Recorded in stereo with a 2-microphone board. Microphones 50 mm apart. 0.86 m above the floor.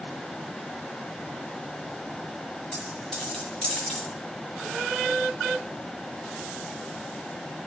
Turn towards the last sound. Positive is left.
turn(degrees=15)  # may be behind; listen again after turning